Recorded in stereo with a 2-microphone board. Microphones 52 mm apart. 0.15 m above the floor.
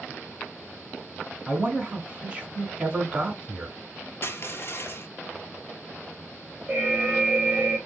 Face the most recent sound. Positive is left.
turn(degrees=-25)  # may be behind; listen again after turning